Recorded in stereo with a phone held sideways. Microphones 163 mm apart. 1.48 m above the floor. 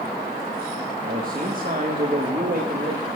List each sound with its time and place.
1.0 s a man speaking: 60° right (ahead or behind), 1.6 m